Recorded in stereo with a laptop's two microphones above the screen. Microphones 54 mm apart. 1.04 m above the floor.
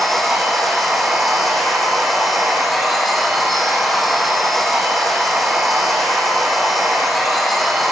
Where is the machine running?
Centre (ahead or behind), 8.5 m.